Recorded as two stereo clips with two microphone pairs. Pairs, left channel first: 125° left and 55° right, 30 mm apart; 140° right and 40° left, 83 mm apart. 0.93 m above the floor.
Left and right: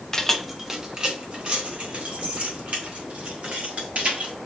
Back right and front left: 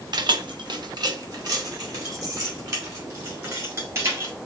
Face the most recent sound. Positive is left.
turn(degrees=-15)